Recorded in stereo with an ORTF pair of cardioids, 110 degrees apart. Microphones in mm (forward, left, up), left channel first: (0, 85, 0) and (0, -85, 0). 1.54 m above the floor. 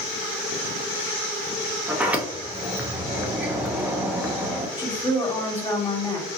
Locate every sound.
1.9 s a sliding door: 10° right, 0.6 m
4.8 s a woman speaking: 25° left, 1.5 m